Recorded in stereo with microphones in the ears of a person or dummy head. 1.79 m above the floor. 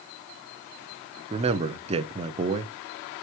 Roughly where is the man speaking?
Right.